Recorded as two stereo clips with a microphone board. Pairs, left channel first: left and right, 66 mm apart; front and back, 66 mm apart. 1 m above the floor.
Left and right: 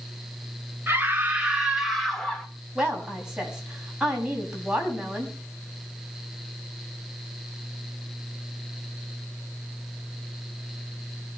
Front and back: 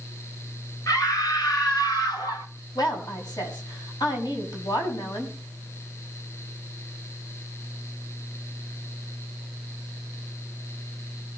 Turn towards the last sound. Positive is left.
turn(degrees=-10)